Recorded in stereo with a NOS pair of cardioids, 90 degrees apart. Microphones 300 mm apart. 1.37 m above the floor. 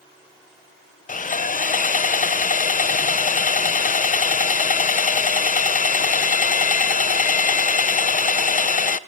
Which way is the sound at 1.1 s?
25° left.